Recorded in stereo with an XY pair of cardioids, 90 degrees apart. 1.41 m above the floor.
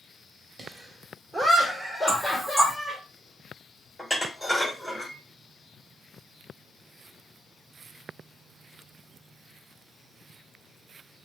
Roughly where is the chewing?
No chewing in this recording.